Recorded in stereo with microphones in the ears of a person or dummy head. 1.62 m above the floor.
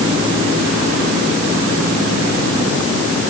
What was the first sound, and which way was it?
Only background noise.